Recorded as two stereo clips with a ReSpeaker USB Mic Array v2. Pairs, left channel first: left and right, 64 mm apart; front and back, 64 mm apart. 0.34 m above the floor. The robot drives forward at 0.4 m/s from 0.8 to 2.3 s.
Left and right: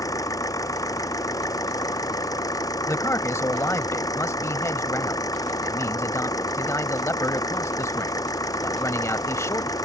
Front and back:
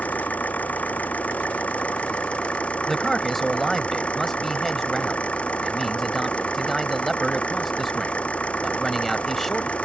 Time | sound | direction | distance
0.0 | an engine running | 65° left | ?
2.9 | a man speaking | 85° left | ?